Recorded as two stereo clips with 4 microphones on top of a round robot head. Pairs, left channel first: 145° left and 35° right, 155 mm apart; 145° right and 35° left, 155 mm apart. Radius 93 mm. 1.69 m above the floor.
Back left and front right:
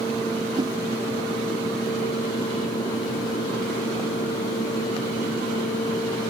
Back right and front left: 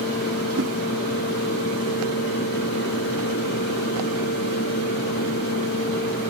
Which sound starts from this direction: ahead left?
A whoosh, at 0.6 s.